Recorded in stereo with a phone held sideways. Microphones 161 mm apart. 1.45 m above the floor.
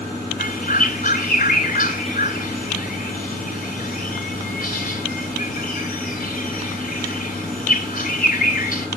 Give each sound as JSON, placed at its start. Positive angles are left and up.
{"t": 0.4, "sound": "a bird", "side_deg": 55, "distance_m": 3.0}